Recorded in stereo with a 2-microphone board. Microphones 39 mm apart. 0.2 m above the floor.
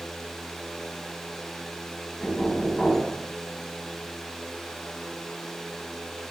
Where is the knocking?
10° left (ahead or behind), 1.1 m.